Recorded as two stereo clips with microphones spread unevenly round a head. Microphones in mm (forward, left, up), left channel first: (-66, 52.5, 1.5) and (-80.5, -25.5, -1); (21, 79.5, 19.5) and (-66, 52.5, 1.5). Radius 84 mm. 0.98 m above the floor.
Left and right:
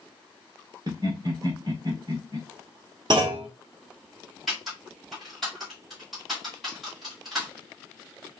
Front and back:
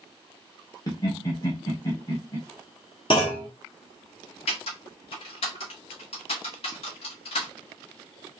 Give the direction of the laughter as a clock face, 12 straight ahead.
2 o'clock.